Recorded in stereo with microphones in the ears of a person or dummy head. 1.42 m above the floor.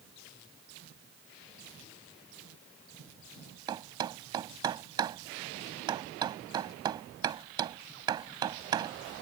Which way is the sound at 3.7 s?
25° right (ahead or behind).